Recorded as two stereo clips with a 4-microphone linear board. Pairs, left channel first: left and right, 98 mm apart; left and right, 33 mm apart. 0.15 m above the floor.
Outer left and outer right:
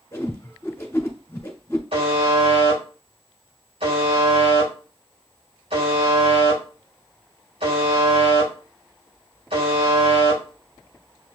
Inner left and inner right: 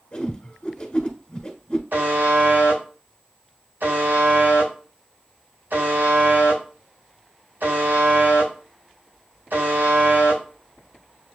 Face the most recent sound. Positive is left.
turn(degrees=-75)  # may be behind; listen again after turning